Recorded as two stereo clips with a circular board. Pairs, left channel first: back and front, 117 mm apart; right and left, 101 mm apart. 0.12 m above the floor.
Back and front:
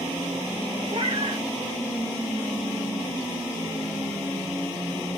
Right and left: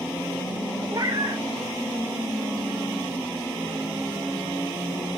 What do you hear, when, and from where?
0.9 s a cat meowing: 40° left, 1.7 m